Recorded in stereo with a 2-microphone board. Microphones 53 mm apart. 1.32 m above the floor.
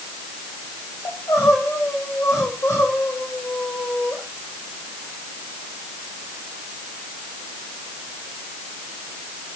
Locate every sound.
1.1 s crying: 65° left (ahead or behind), 6.5 m